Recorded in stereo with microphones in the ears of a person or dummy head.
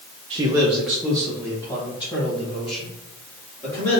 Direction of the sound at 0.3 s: 25° right (ahead or behind).